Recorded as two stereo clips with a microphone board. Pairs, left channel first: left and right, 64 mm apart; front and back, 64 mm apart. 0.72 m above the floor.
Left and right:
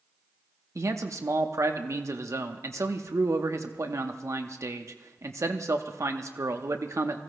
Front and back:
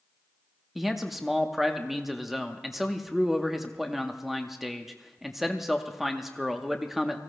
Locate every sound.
0.8 s a man speaking: 95° right, 0.9 m